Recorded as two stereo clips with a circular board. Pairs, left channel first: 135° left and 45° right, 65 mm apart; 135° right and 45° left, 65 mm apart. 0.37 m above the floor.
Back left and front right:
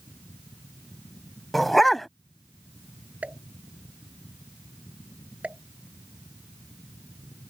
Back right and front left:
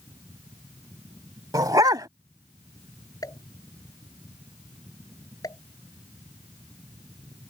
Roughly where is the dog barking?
Ahead left.